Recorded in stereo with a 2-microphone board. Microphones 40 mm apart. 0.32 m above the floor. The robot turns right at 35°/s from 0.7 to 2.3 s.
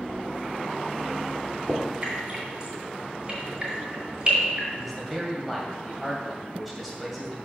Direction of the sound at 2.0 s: 35° right (ahead or behind).